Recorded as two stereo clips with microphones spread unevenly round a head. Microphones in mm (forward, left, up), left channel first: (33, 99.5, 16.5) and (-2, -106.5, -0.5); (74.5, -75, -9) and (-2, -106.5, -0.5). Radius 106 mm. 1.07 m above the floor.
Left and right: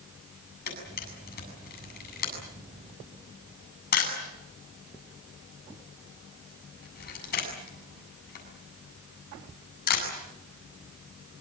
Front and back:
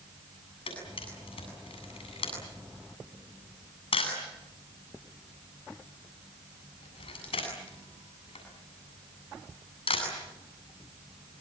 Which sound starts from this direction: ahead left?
A camera shutter, at 0.7 s.